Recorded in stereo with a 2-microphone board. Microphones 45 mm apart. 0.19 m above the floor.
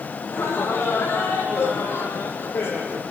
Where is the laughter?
85° left, 8.5 m; by 3.0 s 80° left, 7 m.